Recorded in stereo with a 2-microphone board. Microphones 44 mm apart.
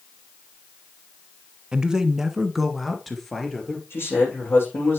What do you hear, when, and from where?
1.7 s a man speaking: 20° right (ahead or behind), 1.0 m; by 3.8 s 5° left (ahead or behind), 2 m
3.9 s a man speaking: 60° left (ahead or behind), 7.5 m